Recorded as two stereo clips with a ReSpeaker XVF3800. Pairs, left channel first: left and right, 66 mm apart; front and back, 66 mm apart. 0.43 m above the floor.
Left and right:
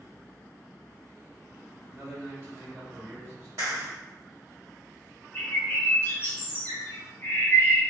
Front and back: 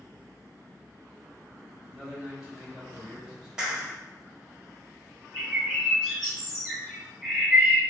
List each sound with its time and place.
1.9 s a man speaking: 100° right, 1.7 m
3.6 s a clap: 100° right, 1.4 m
5.3 s a bird: 100° left, 1.2 m